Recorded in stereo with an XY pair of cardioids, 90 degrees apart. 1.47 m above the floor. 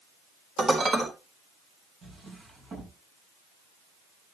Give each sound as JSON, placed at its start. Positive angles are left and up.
{"t": 0.6, "sound": "dishes clattering", "azimuth_deg": -50, "distance_m": 3.5}
{"t": 2.0, "sound": "a drawer", "azimuth_deg": -65, "distance_m": 7.0}